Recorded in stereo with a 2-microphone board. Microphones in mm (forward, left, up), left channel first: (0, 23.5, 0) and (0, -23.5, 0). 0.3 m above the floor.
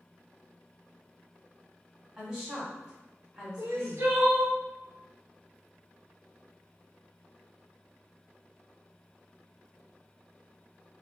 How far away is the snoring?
I don't hear snoring.